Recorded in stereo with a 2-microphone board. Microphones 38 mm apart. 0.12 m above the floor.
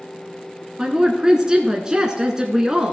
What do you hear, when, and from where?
0.8 s a woman speaking: 15° right (ahead or behind), 1.1 m